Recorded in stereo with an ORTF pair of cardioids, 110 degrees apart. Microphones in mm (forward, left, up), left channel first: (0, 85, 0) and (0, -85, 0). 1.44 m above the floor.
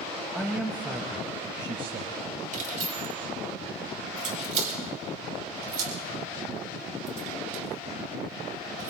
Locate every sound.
0.3 s a man speaking: straight ahead, 1.5 m; by 2.2 s 40° right, 1.5 m
2.5 s keys jangling: 50° right, 4 m